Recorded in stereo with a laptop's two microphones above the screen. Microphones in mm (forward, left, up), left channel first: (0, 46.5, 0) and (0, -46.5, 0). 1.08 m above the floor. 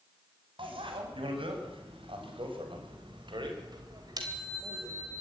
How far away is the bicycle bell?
About 5 m.